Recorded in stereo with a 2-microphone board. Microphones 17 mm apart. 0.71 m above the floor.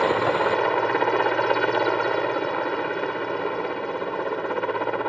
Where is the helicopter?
25° left (ahead or behind).